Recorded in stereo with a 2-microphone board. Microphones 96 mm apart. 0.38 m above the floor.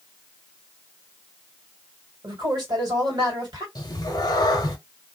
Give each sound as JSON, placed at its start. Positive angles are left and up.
{"t": 2.2, "sound": "a man speaking", "side_deg": -45, "distance_m": 2.0}
{"t": 3.8, "sound": "a cat meowing", "side_deg": 45, "distance_m": 0.8}